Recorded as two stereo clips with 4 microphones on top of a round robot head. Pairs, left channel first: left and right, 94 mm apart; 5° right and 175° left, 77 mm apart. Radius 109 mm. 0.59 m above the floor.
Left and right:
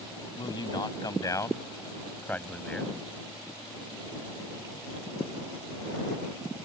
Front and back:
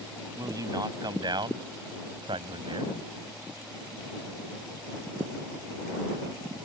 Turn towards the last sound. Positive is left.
turn(degrees=175)